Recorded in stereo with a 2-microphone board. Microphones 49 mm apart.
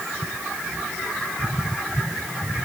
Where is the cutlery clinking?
I don't hear cutlery clinking.